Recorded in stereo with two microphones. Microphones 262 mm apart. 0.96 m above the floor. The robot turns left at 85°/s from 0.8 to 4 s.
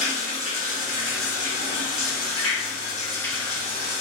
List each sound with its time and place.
0.0 s running water: 145° right, 2.5 m; by 4.0 s 55° right, 2.5 m